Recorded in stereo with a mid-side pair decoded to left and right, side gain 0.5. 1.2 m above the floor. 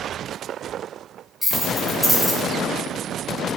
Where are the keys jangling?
10° left, 5.5 m.